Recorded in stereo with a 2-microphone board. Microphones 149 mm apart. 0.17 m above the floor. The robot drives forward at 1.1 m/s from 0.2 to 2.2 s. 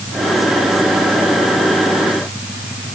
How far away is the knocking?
No knocking in this recording.